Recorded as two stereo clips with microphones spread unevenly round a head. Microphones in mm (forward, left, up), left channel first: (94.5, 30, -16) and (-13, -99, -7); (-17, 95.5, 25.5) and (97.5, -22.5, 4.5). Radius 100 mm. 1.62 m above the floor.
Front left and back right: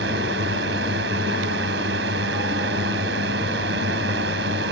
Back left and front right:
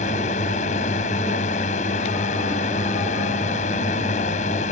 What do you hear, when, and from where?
0.0 s a drone: 170° right